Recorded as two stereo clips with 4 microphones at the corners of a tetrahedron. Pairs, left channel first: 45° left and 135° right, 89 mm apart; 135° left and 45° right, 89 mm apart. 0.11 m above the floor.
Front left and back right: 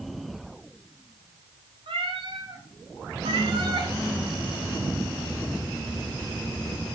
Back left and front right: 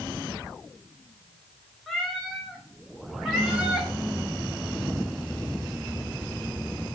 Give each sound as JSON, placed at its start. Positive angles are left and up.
{"t": 1.9, "sound": "a cat meowing", "azimuth_deg": -135, "distance_m": 5.0}